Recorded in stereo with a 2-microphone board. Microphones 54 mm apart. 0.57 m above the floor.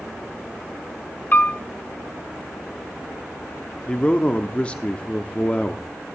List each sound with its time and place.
1.3 s a piano: 35° left (ahead or behind), 0.8 m
3.9 s a man speaking: 25° left (ahead or behind), 0.8 m